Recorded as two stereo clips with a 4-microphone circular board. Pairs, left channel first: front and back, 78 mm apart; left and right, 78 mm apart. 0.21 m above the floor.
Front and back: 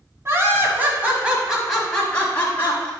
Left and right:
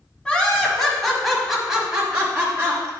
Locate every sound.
0.2 s laughter: 160° left, 1.7 m; by 2.9 s 35° right, 1.6 m